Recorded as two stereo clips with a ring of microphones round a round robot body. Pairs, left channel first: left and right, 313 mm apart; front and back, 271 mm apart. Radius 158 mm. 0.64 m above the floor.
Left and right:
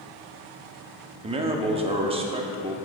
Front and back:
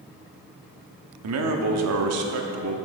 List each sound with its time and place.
1.2 s a man speaking: 160° right, 0.9 m